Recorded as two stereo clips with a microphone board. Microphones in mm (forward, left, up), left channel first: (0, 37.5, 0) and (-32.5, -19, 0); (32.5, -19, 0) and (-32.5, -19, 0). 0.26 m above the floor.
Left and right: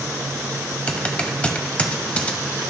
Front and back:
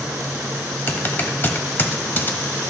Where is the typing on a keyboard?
10° left, 0.8 m.